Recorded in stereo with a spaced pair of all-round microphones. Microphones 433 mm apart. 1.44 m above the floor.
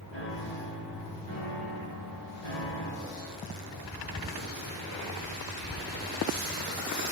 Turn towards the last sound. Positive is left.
turn(degrees=75)  # may be behind; listen again after turning